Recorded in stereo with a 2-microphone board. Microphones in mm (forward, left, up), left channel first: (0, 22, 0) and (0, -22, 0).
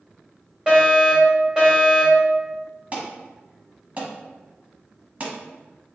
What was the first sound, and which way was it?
A fire alarm, 20° right (ahead or behind).